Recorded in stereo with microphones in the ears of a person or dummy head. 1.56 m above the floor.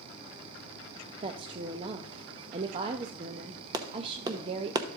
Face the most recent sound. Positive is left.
turn(degrees=-25)  # may be behind; listen again after turning